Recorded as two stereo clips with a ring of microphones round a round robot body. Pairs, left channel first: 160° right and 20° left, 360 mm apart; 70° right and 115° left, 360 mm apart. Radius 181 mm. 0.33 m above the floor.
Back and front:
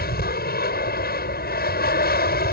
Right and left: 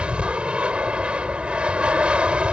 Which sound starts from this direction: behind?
An aircraft, at 0.0 s.